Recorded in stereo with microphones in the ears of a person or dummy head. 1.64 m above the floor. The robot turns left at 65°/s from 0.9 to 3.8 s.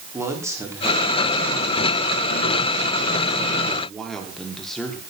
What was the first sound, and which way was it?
A man speaking, 170° right.